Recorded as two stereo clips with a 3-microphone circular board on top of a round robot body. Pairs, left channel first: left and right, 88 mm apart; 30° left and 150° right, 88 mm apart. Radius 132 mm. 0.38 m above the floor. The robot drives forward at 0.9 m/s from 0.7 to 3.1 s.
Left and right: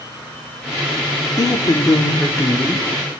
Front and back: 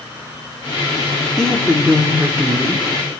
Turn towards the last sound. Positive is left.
turn(degrees=155)